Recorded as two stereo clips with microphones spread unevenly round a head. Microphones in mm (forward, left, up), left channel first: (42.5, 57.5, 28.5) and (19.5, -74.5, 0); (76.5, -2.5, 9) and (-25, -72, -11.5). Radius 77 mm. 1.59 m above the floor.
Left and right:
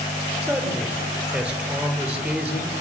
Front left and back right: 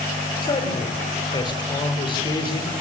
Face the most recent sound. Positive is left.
turn(degrees=-20)